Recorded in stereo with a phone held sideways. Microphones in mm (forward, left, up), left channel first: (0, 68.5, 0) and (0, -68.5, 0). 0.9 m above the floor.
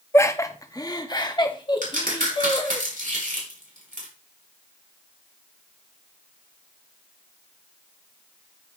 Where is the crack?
85° right, 5 m.